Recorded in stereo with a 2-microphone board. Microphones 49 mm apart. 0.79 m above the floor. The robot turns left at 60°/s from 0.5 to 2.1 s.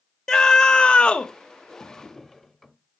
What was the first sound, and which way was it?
A scream, 15° left (ahead or behind).